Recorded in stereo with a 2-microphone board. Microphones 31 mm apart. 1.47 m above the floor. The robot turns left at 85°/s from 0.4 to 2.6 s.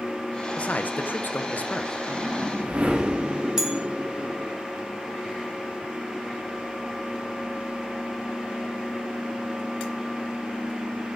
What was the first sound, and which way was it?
A man speaking, 140° left.